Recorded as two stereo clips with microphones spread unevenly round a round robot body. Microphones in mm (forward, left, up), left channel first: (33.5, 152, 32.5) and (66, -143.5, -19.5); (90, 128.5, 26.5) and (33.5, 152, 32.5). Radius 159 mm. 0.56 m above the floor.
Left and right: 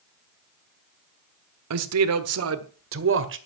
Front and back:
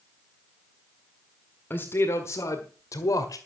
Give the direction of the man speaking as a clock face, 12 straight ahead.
3 o'clock.